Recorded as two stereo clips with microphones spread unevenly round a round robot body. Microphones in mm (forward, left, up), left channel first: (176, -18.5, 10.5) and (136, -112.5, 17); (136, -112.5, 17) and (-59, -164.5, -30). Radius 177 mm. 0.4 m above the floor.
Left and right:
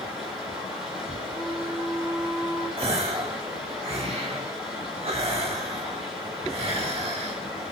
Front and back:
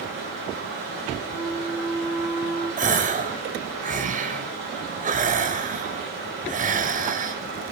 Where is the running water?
175° right, 9.5 m.